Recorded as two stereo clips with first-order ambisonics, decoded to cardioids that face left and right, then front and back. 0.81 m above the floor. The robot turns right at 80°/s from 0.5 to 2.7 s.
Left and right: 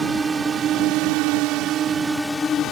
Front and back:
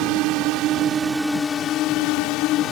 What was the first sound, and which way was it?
A drone, 165° right.